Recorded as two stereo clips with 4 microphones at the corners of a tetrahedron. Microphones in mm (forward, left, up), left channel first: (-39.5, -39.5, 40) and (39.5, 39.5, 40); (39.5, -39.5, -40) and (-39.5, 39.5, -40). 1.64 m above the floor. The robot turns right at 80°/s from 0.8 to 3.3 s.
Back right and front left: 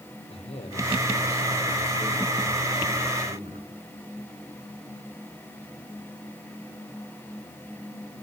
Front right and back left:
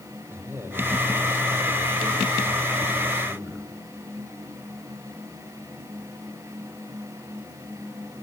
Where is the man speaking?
155° right, 5.5 m; by 3.7 s 45° left, 5.5 m.